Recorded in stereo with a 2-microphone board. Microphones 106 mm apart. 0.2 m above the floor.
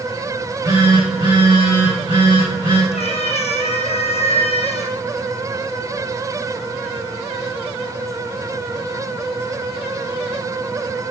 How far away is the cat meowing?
About 1.7 m.